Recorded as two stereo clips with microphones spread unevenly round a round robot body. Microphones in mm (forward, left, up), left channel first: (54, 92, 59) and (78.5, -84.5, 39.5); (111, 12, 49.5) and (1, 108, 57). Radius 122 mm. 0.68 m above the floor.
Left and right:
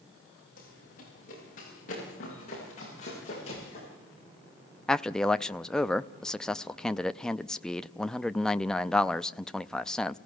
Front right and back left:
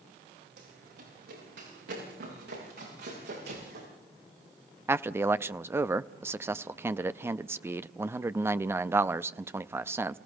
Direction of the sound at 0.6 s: 155° left.